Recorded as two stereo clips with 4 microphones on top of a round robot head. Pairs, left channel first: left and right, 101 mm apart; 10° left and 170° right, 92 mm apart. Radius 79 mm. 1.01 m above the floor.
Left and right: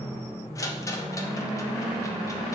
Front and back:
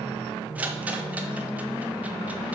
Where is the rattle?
125° left, 0.9 m.